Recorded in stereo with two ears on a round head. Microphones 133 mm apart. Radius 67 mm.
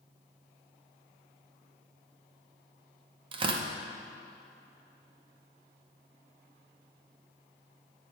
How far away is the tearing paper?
About 0.6 m.